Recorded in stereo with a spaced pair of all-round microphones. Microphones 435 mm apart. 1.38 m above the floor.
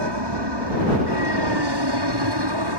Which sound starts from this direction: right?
An aircraft, at 0.0 s.